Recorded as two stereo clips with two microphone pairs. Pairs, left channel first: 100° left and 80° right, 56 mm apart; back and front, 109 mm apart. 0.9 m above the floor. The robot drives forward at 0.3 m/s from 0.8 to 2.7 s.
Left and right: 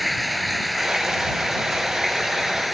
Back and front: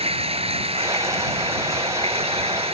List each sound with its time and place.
0.0 s running water: 10° left